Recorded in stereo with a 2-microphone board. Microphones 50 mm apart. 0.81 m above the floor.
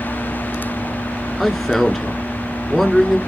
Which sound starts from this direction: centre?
A man speaking, at 1.4 s.